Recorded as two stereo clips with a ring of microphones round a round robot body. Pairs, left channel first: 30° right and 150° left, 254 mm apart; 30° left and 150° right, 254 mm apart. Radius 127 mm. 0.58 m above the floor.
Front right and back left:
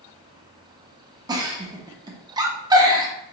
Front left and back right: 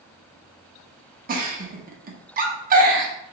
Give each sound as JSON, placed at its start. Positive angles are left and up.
{"t": 1.3, "sound": "a giggle", "azimuth_deg": -150, "distance_m": 0.7}